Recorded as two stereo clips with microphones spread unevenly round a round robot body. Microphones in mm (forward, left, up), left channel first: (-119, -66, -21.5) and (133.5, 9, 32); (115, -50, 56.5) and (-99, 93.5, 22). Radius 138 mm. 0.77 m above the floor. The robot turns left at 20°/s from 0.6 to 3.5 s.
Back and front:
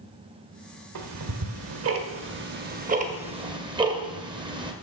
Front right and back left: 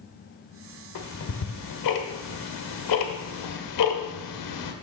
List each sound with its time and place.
0.9 s ticking: 5° right, 1.6 m; by 4.7 s 55° right, 1.6 m